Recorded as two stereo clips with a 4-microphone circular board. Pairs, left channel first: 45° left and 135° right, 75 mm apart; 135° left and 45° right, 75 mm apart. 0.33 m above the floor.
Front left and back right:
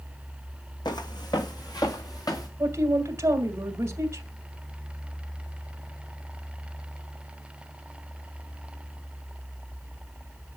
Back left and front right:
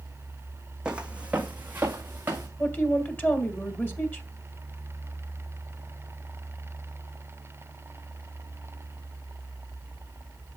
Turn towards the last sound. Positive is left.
turn(degrees=-175)